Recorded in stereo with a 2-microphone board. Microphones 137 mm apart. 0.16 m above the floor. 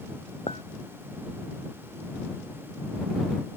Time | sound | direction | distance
0.5 | a clink | 50° left (ahead or behind) | ?